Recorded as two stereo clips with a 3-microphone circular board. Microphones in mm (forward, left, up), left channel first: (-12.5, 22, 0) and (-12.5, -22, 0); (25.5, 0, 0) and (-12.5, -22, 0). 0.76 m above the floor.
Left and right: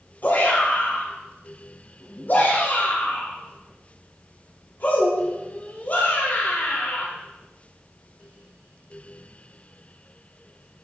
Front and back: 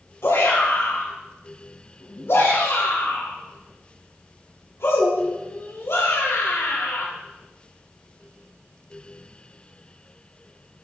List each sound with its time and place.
0.2 s a shout: 45° left, 4 m